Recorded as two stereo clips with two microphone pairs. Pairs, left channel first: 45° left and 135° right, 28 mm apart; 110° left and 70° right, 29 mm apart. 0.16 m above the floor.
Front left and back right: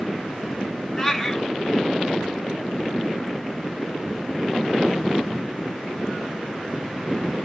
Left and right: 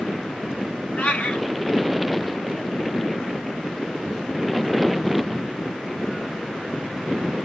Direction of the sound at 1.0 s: 120° left.